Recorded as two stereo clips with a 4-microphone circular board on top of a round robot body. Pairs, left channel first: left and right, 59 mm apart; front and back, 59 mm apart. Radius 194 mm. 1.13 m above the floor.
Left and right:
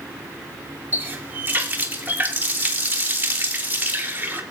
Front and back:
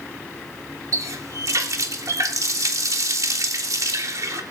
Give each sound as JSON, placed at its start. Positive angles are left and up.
{"t": 0.9, "sound": "a running tap", "azimuth_deg": -150, "distance_m": 1.8}